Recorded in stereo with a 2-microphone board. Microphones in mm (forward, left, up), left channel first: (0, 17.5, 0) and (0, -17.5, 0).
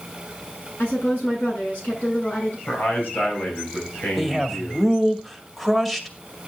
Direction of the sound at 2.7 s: 70° left (ahead or behind).